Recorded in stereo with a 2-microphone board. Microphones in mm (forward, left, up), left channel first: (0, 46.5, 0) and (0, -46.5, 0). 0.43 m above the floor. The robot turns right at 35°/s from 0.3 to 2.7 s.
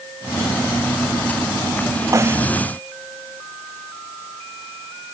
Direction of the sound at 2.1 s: 35° right (ahead or behind).